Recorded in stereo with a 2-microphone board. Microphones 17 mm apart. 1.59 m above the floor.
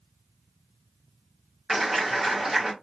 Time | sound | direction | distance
1.7 | a clap | 25° right (ahead or behind) | 1.6 m